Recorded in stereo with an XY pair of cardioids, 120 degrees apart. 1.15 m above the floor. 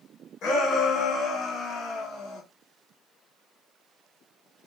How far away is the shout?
About 1.8 m.